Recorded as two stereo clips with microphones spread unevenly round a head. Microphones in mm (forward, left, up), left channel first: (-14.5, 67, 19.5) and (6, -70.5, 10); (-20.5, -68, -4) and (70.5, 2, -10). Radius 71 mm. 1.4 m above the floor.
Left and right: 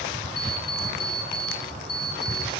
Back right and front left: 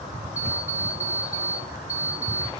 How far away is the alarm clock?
About 5 m.